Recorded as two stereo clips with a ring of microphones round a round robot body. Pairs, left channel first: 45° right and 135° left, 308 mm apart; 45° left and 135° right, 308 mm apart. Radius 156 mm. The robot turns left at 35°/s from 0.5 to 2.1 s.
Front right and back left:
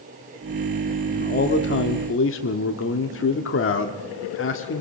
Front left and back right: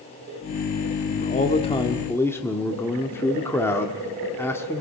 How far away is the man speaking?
About 1.4 m.